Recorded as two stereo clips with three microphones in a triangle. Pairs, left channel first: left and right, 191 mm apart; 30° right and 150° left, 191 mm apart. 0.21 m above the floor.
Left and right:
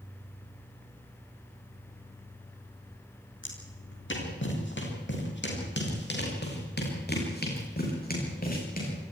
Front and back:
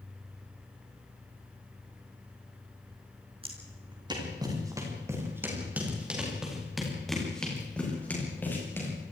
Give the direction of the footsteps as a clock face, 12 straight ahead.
9 o'clock.